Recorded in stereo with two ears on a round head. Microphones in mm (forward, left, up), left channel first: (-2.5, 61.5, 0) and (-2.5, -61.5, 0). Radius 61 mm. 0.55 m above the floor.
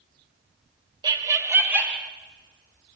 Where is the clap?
No clap in this recording.